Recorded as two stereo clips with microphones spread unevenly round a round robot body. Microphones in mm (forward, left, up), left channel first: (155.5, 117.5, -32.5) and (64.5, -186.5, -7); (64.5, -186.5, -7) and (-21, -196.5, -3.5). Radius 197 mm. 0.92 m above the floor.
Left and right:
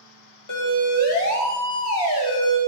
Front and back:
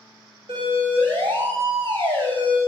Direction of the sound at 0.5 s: 120° left.